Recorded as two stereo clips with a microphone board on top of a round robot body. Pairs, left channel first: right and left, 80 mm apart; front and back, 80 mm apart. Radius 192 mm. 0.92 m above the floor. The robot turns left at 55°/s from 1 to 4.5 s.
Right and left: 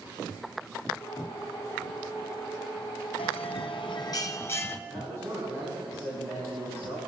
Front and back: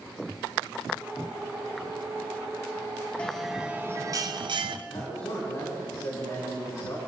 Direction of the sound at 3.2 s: 80° right.